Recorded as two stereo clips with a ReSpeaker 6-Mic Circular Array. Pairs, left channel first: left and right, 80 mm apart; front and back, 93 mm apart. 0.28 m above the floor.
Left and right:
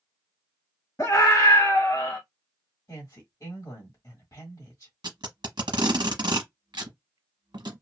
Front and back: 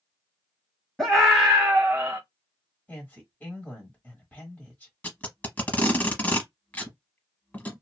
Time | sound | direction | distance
1.0 | a scream | 80° left | 1.2 m
2.9 | a woman speaking | 60° left | 1.4 m
5.0 | tape being pulled | 70° right | 0.8 m